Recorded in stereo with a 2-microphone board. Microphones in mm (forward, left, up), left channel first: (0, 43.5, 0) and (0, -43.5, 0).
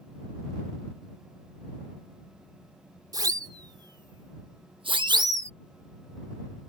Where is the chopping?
No chopping in this recording.